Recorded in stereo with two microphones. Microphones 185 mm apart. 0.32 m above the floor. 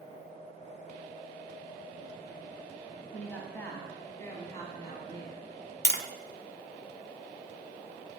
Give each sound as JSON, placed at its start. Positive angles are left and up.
{"t": 3.1, "sound": "a woman speaking", "side_deg": 5, "distance_m": 1.8}
{"t": 5.8, "sound": "tapping", "side_deg": 65, "distance_m": 0.9}